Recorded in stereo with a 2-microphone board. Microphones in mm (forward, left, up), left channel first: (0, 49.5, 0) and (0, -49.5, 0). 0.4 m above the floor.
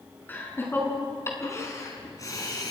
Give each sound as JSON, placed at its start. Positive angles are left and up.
{"t": 0.3, "sound": "laughter", "side_deg": 20, "distance_m": 5.5}